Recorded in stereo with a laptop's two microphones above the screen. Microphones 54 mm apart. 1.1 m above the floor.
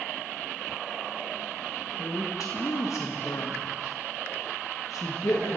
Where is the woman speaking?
75° left (ahead or behind), 1.4 m.